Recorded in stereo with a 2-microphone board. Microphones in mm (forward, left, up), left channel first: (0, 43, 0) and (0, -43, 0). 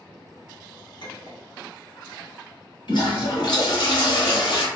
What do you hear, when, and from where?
1.0 s a clink: 60° left (ahead or behind), 0.9 m
2.9 s a toilet flushing: 70° left (ahead or behind), 1.1 m